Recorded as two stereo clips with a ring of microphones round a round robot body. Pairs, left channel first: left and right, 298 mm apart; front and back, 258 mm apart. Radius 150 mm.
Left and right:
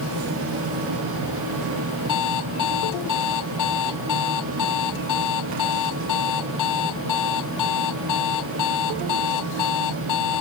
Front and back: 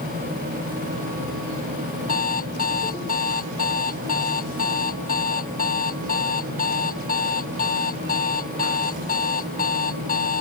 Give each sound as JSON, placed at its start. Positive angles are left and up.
{"t": 2.1, "sound": "an alarm clock", "azimuth_deg": 60}